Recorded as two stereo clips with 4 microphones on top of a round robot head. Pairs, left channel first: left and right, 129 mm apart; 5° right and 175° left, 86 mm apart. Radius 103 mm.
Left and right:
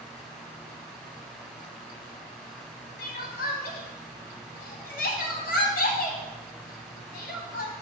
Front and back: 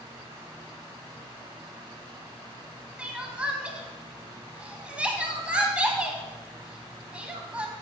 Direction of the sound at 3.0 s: 100° left.